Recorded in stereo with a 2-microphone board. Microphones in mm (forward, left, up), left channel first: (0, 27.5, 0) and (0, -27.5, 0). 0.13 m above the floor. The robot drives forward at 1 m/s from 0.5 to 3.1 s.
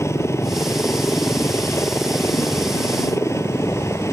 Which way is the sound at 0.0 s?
55° left (ahead or behind).